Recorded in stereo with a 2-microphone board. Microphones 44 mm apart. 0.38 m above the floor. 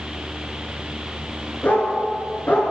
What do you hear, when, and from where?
1.6 s a dog barking: 40° left (ahead or behind), 1.8 m